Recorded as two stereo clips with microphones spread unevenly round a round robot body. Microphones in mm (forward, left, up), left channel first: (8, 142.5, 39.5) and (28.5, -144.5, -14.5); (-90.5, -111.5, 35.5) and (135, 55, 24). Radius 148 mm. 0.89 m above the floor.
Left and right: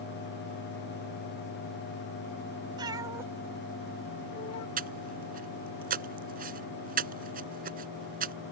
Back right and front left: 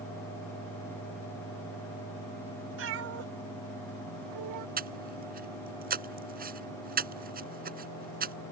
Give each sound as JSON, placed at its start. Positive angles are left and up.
{"t": 2.8, "sound": "a cat meowing", "azimuth_deg": -5}
{"t": 4.8, "sound": "breathing", "azimuth_deg": -25}